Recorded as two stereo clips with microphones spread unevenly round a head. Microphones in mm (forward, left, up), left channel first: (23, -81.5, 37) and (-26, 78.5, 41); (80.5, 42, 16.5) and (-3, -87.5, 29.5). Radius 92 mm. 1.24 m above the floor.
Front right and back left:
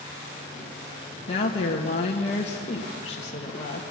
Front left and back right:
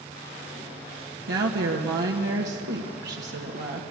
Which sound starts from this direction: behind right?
A woman speaking, at 1.3 s.